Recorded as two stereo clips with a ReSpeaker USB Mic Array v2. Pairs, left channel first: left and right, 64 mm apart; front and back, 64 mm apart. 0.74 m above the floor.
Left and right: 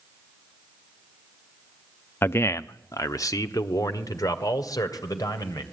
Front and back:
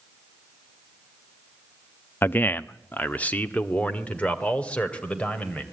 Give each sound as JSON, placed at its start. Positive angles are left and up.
{"t": 2.2, "sound": "a man speaking", "azimuth_deg": 50, "distance_m": 0.6}